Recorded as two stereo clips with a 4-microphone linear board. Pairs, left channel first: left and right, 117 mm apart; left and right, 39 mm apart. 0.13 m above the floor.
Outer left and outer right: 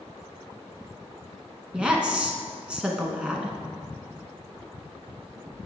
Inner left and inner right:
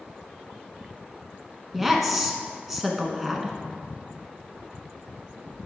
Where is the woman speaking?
10° right (ahead or behind), 1.1 m.